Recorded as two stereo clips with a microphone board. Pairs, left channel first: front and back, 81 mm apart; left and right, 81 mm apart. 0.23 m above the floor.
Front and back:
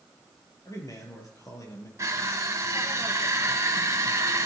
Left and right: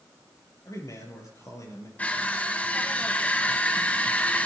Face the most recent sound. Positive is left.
turn(degrees=150)